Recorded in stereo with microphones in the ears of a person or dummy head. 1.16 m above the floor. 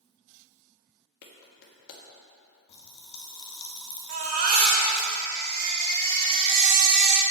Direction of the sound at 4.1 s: 45° right (ahead or behind).